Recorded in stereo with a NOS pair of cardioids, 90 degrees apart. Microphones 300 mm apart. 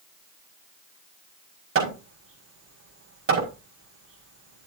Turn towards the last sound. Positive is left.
turn(degrees=-45)